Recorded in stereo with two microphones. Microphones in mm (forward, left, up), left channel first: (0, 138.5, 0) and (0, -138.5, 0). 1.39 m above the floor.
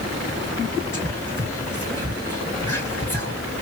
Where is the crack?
I don't hear a crack.